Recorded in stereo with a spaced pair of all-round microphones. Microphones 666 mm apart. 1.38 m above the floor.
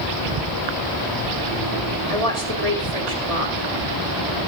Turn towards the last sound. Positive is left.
turn(degrees=-60)  # may be behind; listen again after turning